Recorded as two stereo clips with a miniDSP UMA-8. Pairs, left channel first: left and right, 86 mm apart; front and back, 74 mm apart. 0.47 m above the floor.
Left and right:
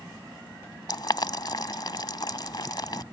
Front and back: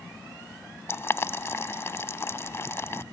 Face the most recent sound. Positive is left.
turn(degrees=55)